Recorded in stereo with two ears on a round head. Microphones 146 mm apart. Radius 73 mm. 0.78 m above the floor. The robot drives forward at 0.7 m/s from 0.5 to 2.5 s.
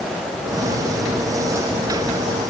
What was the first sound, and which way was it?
Only background noise.